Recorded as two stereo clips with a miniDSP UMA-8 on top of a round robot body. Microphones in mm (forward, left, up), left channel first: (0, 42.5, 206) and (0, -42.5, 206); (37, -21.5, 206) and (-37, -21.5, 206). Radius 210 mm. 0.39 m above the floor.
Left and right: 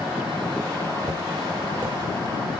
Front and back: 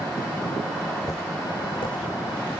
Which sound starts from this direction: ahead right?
Footsteps, at 1.1 s.